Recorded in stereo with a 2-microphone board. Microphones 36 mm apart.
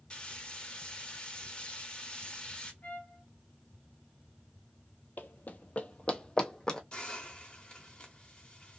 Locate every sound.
0.1 s frying: 30° left (ahead or behind), 1.0 m
2.8 s a trumpet: 55° left (ahead or behind), 1.1 m
5.2 s running footsteps: 55° left (ahead or behind), 0.6 m; by 6.8 s 15° left (ahead or behind), 1.0 m
6.9 s a hiss: 30° left (ahead or behind), 1.1 m